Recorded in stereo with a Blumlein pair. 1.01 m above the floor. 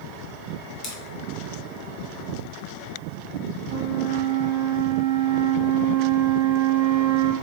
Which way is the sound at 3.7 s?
50° right.